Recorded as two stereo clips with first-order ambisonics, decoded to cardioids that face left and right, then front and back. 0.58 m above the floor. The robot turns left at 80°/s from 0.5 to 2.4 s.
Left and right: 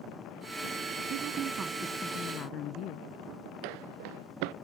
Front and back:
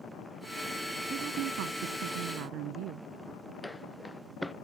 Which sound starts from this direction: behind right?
A woman speaking, at 1.1 s.